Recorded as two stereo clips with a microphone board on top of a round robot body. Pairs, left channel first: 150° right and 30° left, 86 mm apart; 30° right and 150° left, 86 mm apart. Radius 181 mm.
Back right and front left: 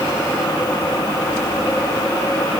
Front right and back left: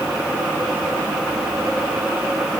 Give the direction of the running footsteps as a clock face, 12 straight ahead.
No running footsteps in this recording.